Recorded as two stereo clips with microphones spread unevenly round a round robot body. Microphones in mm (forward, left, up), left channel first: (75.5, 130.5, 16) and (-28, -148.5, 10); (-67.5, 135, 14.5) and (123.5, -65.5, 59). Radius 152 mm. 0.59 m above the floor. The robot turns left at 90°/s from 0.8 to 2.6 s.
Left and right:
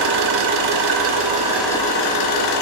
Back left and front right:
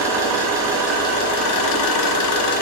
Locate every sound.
0.0 s an engine running: 125° right, 0.7 m; by 2.6 s 70° left, 0.7 m